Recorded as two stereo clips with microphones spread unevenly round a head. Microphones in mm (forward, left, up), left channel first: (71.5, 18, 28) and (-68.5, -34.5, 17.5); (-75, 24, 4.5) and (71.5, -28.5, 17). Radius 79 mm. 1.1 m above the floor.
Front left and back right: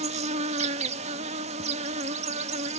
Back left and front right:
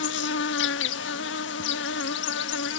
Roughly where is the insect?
Behind left.